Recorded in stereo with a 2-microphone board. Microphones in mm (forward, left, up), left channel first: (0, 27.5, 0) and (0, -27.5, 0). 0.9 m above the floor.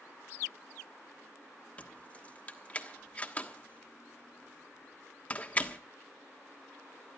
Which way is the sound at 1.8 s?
25° left (ahead or behind).